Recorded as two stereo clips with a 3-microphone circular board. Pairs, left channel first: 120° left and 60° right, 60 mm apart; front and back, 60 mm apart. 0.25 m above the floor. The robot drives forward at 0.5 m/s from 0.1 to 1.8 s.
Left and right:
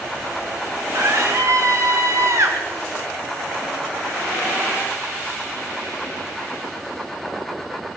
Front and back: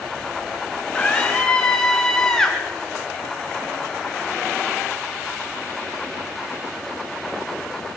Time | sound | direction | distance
0.9 | a scream | 65° right | 2.5 m